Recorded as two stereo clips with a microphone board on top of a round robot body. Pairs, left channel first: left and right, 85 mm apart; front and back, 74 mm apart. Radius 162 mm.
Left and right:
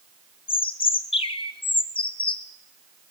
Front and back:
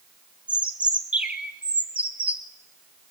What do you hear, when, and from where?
0.5 s a bird: 105° left, 0.7 m